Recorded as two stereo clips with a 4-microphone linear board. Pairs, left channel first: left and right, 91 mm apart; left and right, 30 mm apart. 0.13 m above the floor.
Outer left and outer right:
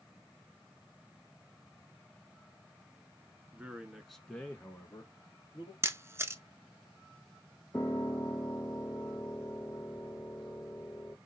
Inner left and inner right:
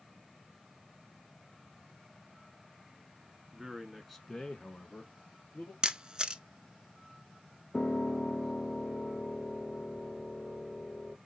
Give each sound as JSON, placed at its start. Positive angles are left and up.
{"t": 3.5, "sound": "a man speaking", "side_deg": -15, "distance_m": 1.2}
{"t": 5.8, "sound": "a camera shutter", "side_deg": -30, "distance_m": 0.5}
{"t": 7.7, "sound": "a piano", "side_deg": 20, "distance_m": 2.5}